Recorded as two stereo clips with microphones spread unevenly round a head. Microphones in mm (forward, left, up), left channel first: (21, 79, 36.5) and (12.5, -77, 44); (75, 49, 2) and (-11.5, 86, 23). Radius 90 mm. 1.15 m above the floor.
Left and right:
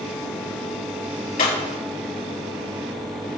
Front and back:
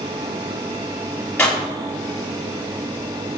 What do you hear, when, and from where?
1.4 s breaking glass: 50° left, 5.5 m